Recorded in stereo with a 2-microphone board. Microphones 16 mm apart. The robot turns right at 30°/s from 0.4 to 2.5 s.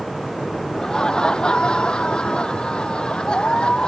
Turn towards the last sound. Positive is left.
turn(degrees=100)